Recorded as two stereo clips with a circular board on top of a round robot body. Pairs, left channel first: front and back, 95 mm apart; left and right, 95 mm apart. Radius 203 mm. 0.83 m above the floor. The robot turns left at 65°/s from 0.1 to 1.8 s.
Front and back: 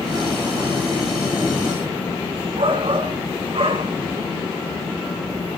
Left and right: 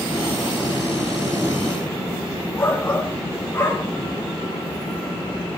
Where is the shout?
155° left, 3.5 m.